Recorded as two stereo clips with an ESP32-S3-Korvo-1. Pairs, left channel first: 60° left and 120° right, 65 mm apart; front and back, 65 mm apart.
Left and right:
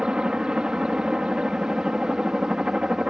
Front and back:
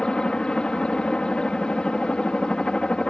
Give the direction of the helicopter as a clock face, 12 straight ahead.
2 o'clock.